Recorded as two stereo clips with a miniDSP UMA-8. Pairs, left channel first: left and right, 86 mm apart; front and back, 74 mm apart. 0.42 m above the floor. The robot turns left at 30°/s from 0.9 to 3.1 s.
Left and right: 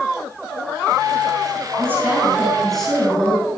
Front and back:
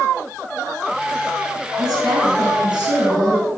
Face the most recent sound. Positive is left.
turn(degrees=165)